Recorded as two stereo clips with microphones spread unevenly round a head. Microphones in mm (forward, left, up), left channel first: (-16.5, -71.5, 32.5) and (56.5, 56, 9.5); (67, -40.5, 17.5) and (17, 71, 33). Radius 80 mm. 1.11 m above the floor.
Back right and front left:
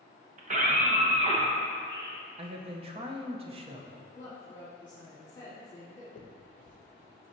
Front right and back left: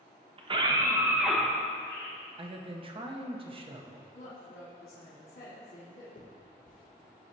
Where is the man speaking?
80° left, 0.8 m.